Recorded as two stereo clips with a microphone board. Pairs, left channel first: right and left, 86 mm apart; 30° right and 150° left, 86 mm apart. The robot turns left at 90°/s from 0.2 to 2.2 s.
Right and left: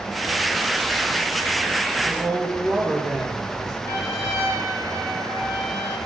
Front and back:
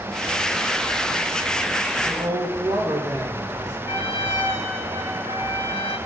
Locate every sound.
2.0 s a woman speaking: 160° right, 3.5 m; by 3.8 s 175° right, 3.5 m
3.9 s a trumpet: 155° right, 4.5 m